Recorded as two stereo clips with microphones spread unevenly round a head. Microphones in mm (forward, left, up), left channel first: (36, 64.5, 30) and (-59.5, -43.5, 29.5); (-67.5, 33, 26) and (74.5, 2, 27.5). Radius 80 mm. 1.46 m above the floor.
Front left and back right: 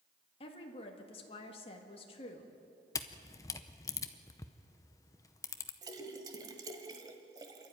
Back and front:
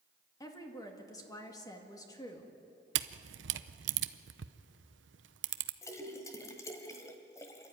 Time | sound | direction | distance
0.4 | a woman speaking | 100° left | 1.9 m
3.0 | a camera shutter | 20° right | 0.7 m
5.8 | a splash | 150° right | 1.3 m